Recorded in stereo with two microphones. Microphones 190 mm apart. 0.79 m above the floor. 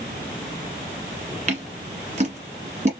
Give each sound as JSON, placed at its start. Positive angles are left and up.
{"t": 1.5, "sound": "scissors", "side_deg": -40, "distance_m": 1.6}